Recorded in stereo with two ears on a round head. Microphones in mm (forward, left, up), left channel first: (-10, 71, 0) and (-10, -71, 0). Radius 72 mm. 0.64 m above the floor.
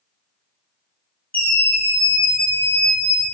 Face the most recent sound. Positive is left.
turn(degrees=20)  # may be behind; listen again after turning